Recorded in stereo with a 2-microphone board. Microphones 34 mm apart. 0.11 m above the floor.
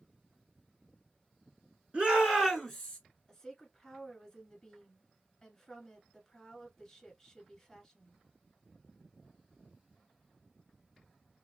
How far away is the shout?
About 1.3 m.